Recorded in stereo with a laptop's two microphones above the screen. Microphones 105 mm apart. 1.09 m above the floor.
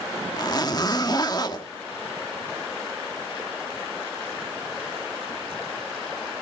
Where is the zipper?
40° left (ahead or behind), 1.5 m.